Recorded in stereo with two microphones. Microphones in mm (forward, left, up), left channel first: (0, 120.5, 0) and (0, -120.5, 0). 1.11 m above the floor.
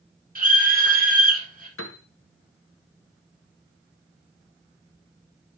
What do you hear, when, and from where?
0.3 s a scream: 35° right (ahead or behind), 4 m
1.8 s a piano: 60° left (ahead or behind), 0.9 m